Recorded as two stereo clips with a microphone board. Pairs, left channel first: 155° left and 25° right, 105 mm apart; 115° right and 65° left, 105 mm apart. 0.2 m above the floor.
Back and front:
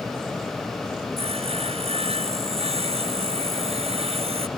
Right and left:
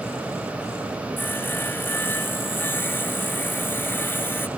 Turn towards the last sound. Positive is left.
turn(degrees=-40)